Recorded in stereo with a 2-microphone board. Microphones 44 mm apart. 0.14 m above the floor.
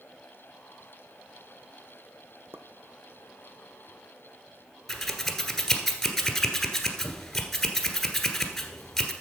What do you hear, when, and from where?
2.5 s a pop: 60° right (ahead or behind), 1.1 m
4.9 s scissors: 5° left (ahead or behind), 1.5 m